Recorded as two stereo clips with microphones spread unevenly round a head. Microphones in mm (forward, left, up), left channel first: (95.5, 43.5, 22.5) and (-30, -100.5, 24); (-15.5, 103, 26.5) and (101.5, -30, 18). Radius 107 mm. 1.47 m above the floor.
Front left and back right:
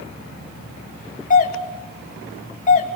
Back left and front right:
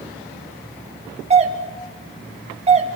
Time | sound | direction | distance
1.3 | a doorbell | 5° left | 3.5 m